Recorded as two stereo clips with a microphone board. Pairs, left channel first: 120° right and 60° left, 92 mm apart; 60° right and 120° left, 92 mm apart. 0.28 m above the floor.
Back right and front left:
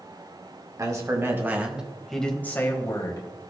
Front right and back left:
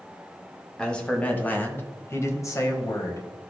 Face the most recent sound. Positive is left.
turn(degrees=-100)